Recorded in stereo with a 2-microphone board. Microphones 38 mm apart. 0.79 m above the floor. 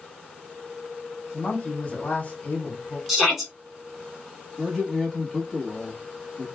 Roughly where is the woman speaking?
Left.